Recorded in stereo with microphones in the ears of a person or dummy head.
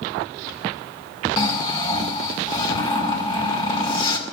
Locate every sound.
1.4 s snoring: 30° left (ahead or behind), 2 m